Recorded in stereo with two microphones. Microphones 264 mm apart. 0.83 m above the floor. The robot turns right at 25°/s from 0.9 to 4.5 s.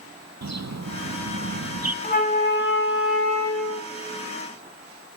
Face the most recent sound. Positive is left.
turn(degrees=90)